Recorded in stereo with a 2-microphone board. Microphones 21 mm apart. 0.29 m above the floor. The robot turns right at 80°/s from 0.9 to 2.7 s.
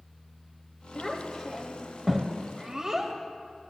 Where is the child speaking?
15° left (ahead or behind), 1.0 m; by 3.1 s 25° right (ahead or behind), 1.0 m.